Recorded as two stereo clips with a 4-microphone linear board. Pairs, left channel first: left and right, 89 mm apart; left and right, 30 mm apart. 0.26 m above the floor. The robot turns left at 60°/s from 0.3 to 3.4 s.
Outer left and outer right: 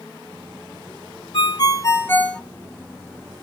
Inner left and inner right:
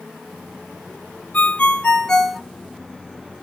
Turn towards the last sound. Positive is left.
turn(degrees=-50)